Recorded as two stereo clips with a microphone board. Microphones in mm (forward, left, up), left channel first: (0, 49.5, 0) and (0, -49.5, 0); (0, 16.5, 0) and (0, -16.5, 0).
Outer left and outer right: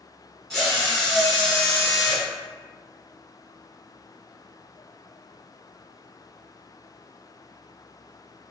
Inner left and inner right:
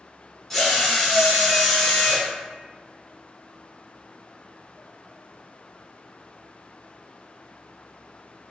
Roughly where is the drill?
Centre.